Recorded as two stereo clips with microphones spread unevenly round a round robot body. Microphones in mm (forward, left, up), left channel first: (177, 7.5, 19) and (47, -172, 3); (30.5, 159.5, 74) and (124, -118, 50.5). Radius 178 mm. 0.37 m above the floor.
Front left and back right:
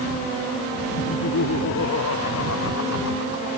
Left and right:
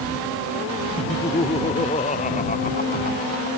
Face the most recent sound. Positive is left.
turn(degrees=50)